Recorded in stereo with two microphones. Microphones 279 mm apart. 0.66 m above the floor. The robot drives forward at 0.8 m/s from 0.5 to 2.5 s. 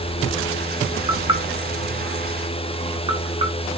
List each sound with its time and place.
1.1 s knocking: 15° right (ahead or behind), 1.0 m